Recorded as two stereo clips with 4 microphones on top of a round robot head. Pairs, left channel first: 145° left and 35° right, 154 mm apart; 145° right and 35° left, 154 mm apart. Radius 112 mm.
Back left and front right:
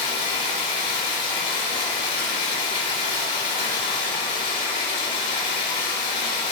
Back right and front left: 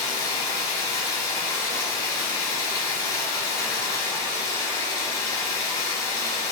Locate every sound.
0.0 s running water: 150° left, 4 m